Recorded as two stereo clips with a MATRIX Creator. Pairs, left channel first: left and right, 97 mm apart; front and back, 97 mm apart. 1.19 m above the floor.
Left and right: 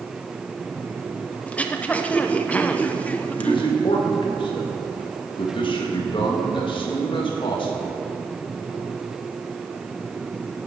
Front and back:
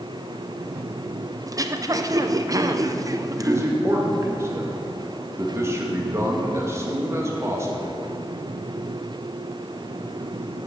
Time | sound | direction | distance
1.5 | throat clearing | 160° left | 0.6 m
3.4 | a man speaking | 120° left | 2 m